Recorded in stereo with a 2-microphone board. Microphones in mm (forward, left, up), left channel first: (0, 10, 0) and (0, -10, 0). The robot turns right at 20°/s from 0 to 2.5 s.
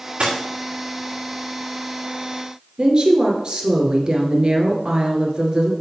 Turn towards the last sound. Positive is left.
turn(degrees=-40)  # may be behind; listen again after turning